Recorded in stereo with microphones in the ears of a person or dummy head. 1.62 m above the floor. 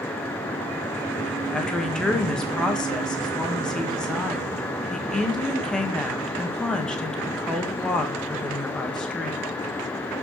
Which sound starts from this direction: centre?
A woman speaking, at 1.5 s.